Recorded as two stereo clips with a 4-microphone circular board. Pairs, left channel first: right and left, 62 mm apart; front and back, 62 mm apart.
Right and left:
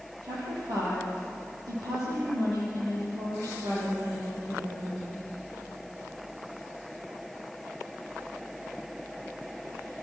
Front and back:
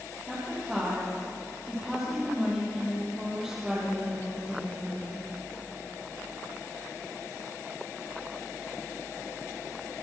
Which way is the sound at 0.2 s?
95° left.